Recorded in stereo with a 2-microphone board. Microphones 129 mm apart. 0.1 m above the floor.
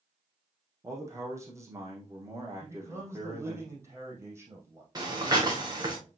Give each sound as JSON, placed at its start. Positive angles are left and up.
{"t": 0.8, "sound": "a man speaking", "side_deg": -20, "distance_m": 3.5}
{"t": 2.6, "sound": "a man speaking", "side_deg": -20, "distance_m": 4.5}
{"t": 5.0, "sound": "breathing", "side_deg": -30, "distance_m": 3.0}